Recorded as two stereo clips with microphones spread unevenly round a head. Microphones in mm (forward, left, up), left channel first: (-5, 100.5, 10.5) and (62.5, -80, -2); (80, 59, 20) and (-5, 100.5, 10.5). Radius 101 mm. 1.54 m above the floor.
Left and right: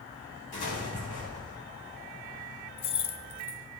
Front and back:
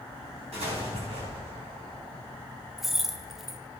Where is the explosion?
160° left, 4 m.